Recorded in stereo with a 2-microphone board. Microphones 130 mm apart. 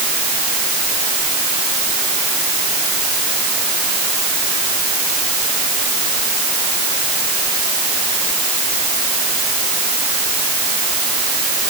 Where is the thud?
No thud in this recording.